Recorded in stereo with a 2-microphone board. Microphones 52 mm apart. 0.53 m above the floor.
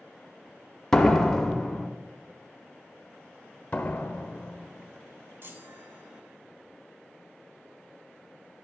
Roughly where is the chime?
Right.